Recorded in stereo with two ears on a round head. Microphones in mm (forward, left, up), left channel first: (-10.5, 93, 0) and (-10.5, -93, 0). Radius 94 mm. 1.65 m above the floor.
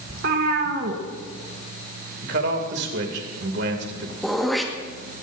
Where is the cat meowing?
55° right (ahead or behind), 2.5 m.